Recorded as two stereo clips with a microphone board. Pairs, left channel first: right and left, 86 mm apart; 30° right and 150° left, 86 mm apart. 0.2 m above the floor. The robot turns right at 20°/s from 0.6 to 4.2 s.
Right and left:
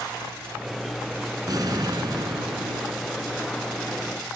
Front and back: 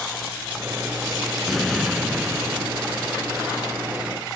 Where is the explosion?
55° left; by 2.9 s 85° left.